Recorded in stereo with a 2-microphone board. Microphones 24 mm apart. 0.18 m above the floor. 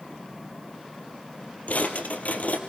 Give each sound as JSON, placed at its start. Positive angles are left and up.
{"t": 1.7, "sound": "a drawer", "side_deg": 75, "distance_m": 2.0}